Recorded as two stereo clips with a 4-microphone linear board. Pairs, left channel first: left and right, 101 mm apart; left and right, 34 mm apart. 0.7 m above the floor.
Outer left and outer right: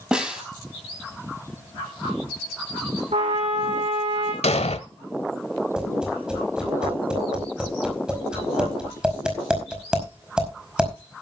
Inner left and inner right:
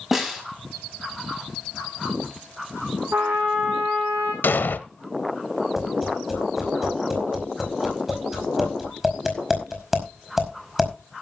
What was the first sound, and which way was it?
A snare drum, 10° right (ahead or behind).